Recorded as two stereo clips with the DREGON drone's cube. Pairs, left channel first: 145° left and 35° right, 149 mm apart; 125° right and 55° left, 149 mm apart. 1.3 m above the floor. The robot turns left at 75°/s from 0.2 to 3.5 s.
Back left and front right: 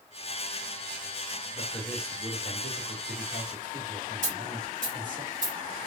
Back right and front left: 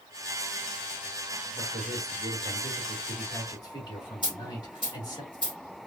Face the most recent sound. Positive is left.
turn(degrees=-70)